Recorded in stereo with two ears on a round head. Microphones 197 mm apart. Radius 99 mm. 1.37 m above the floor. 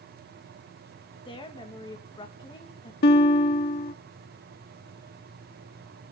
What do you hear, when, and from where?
1.2 s a woman speaking: 20° left (ahead or behind), 2 m
3.0 s a guitar: 45° left (ahead or behind), 1.0 m